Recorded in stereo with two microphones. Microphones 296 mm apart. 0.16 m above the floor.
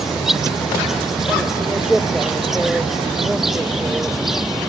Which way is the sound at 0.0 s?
Centre (ahead or behind).